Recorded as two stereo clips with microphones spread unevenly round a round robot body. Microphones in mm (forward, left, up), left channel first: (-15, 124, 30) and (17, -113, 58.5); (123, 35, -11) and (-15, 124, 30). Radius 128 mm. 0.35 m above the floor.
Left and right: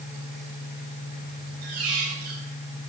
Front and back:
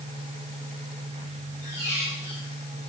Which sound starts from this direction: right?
A squeak, at 1.6 s.